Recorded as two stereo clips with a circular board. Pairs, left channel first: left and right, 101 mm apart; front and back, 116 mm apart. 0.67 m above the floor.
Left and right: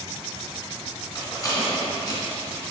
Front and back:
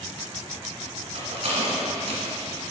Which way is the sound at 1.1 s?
145° left.